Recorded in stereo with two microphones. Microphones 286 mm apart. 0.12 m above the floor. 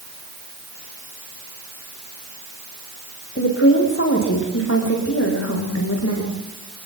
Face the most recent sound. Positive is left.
turn(degrees=55)  # may be behind; listen again after turning